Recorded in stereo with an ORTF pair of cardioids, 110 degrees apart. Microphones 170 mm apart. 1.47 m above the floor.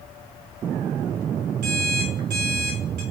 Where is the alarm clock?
70° right, 2 m.